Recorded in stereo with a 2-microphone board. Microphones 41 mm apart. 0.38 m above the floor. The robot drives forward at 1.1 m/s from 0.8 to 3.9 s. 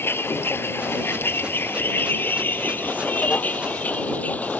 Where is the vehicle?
85° left; by 4.6 s 40° left (ahead or behind).